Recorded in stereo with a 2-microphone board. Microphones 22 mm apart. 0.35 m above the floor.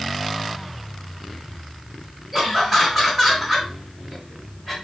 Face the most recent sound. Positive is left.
turn(degrees=10)  # may be behind; listen again after turning